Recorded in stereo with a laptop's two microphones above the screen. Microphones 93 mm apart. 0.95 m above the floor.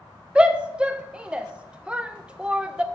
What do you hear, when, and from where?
0.3 s a shout: 10° right (ahead or behind), 0.5 m